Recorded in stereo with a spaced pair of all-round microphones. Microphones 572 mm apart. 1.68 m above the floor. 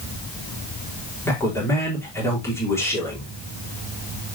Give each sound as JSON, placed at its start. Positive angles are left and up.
{"t": 1.2, "sound": "a man speaking", "side_deg": 5, "distance_m": 4.5}